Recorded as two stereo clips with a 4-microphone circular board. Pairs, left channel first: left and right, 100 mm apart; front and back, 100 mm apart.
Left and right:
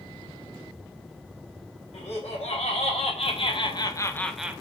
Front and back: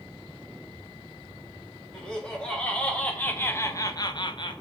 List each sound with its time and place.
1.9 s laughter: 85° left, 1.9 m; by 4.6 s 25° right, 0.5 m